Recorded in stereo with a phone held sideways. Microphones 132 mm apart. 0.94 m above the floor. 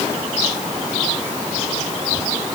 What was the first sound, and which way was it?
Only background noise.